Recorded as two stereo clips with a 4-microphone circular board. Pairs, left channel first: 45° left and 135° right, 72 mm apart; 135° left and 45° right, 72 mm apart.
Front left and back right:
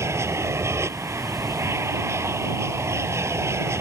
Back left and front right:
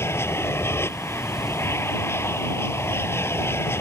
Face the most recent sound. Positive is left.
turn(degrees=-175)